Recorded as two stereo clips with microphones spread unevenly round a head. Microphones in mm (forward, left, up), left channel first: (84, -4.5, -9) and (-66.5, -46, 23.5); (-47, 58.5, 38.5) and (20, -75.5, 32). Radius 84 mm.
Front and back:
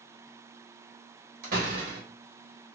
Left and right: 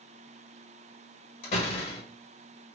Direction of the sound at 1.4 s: 160° left.